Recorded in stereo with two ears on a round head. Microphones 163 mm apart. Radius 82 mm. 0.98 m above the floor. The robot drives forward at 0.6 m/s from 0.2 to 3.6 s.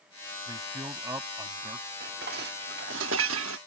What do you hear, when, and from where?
0.5 s a man speaking: 20° right (ahead or behind); by 1.9 s 15° right (ahead or behind)
2.0 s dishes clattering: 50° right (ahead or behind); by 3.6 s 85° right